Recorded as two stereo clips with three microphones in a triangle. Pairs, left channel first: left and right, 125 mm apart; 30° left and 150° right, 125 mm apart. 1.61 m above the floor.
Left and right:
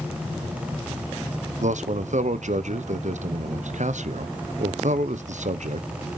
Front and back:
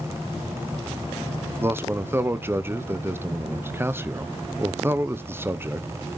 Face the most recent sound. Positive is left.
turn(degrees=-75)